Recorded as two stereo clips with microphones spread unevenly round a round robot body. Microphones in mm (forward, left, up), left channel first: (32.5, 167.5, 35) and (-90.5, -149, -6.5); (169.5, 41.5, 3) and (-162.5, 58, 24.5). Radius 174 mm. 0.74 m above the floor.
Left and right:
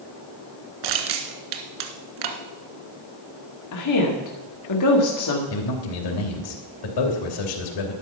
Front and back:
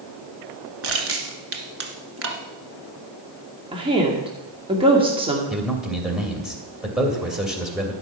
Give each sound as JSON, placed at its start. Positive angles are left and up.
{"t": 0.8, "sound": "crushing", "azimuth_deg": -130, "distance_m": 1.5}
{"t": 3.7, "sound": "a woman speaking", "azimuth_deg": 100, "distance_m": 2.0}
{"t": 5.5, "sound": "a man speaking", "azimuth_deg": 90, "distance_m": 3.0}